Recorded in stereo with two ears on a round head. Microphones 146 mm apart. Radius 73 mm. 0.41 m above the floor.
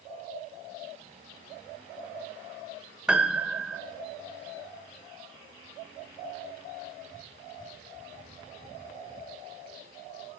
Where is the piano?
5° right (ahead or behind), 1.5 m.